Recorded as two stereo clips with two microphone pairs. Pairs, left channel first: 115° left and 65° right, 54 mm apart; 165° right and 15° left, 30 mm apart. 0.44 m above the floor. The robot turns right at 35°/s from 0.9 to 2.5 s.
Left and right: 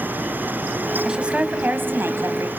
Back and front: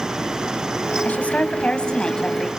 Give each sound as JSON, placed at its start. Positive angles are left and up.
{"t": 1.1, "sound": "a woman speaking", "azimuth_deg": -145, "distance_m": 2.5}